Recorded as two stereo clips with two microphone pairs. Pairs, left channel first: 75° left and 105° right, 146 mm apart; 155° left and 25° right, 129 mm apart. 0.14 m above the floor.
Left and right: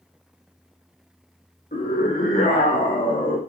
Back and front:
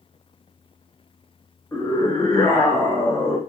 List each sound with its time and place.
1.7 s a scream: 85° left, 8.5 m